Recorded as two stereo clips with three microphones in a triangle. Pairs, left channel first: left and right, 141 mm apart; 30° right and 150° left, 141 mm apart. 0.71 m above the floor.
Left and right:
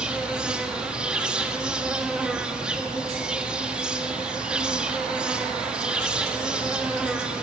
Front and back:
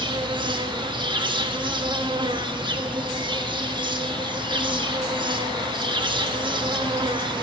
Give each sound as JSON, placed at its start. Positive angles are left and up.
{"t": 0.0, "sound": "an insect", "azimuth_deg": -170, "distance_m": 1.2}